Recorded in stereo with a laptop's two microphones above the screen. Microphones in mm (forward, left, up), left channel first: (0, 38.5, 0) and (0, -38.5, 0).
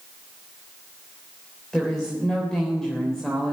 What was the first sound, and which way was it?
A woman speaking, 5° left (ahead or behind).